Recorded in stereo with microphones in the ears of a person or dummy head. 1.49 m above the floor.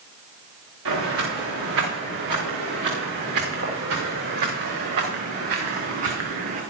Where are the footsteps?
75° right (ahead or behind), 7.5 m; by 6.6 s 50° right (ahead or behind), 5 m.